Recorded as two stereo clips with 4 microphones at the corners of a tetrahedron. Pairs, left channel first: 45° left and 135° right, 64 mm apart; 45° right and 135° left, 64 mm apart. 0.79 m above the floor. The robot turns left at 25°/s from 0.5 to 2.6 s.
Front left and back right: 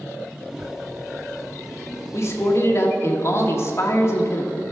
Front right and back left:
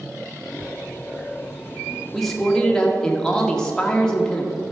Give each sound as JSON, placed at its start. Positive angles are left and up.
{"t": 2.1, "sound": "a man speaking", "azimuth_deg": 45, "distance_m": 1.4}